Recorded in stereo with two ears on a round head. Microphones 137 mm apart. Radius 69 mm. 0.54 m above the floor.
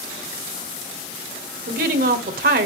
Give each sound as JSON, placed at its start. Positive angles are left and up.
{"t": 1.7, "sound": "a woman speaking", "side_deg": -60, "distance_m": 1.7}